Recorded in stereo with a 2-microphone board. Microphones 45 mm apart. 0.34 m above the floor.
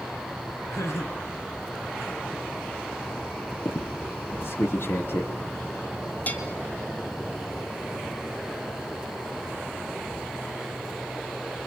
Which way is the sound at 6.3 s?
35° left (ahead or behind).